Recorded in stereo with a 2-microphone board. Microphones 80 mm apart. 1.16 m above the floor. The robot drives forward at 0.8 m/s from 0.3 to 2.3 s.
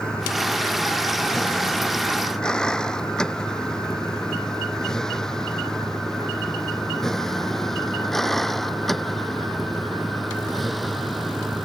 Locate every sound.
0.0 s a vehicle: 10° left (ahead or behind); by 11.7 s centre (ahead or behind)